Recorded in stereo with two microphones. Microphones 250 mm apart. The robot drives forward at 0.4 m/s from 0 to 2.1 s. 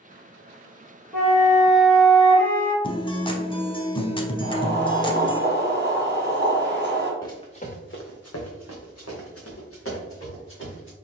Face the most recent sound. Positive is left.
turn(degrees=50)  # may be behind; listen again after turning